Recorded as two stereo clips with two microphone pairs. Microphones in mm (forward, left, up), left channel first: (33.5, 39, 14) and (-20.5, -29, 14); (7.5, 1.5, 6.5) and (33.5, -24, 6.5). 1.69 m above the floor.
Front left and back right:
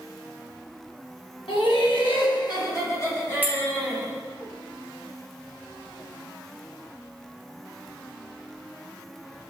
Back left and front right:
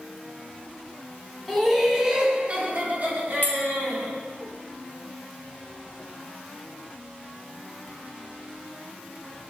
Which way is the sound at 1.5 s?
50° left.